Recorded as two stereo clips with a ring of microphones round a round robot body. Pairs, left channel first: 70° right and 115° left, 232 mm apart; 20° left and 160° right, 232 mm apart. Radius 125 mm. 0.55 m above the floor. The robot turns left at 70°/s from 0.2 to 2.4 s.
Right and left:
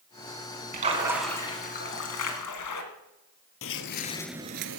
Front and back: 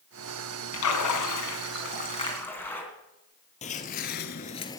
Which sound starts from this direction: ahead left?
A splash, at 0.7 s.